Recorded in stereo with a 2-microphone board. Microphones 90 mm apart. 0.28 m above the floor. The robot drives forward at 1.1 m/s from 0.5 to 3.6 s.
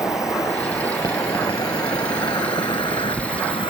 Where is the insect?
35° left (ahead or behind); by 3.7 s 65° left (ahead or behind).